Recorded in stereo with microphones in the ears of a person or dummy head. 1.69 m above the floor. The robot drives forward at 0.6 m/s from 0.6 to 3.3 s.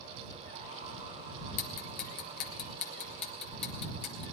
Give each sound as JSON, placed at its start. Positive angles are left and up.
{"t": 1.6, "sound": "ticking", "side_deg": 50, "distance_m": 1.0}